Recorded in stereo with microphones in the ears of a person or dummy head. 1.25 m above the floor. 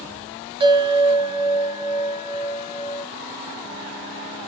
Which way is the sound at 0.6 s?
30° right (ahead or behind).